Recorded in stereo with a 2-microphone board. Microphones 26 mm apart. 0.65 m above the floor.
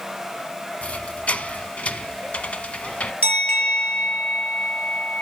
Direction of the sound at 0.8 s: 70° left (ahead or behind).